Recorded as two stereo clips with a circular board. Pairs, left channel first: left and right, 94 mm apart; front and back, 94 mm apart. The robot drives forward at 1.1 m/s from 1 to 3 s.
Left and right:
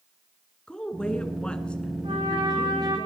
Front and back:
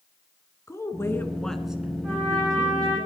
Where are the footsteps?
No footsteps in this recording.